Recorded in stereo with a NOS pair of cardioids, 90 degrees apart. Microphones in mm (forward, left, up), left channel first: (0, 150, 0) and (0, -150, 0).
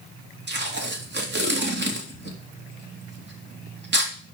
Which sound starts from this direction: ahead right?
Tape being pulled, at 0.5 s.